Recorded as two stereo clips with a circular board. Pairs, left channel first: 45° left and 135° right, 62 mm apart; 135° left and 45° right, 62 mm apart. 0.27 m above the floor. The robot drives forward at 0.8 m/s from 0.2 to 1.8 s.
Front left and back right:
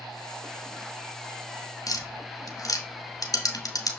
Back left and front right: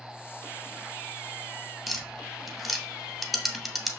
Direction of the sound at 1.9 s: 40° left.